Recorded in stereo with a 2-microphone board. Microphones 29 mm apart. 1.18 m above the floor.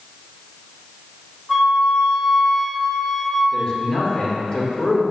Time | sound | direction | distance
1.5 | a flute | 5° left (ahead or behind) | 1.9 m
3.5 | a man speaking | 25° left (ahead or behind) | 1.9 m